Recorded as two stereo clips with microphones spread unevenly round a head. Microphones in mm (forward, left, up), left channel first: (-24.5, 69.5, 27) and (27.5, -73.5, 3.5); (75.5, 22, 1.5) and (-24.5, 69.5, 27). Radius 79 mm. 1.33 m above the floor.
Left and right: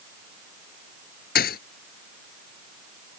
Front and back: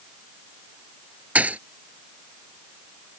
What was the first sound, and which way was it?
A thud, 80° left.